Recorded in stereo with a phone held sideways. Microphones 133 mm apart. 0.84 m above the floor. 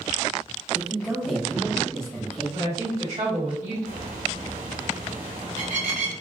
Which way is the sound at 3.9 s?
75° right (ahead or behind).